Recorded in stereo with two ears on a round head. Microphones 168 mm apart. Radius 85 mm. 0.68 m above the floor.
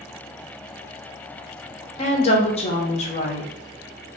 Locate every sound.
2.0 s a woman speaking: 35° left (ahead or behind), 0.6 m